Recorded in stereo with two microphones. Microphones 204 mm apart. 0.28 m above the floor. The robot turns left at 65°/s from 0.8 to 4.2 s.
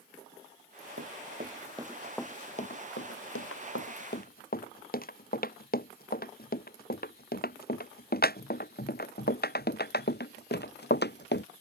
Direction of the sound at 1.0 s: 70° right (ahead or behind).